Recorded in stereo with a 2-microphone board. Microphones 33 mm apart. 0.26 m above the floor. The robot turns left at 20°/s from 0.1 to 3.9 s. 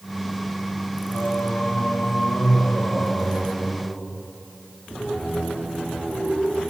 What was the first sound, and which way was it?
Singing, 90° left.